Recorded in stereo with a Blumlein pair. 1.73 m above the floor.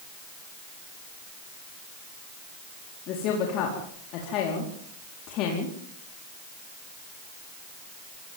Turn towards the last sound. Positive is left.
turn(degrees=40)